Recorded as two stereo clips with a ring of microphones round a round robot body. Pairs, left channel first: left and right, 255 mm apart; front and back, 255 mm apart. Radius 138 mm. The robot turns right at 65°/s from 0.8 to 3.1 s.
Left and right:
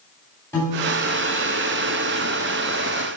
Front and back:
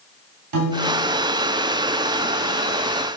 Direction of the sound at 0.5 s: 170° left.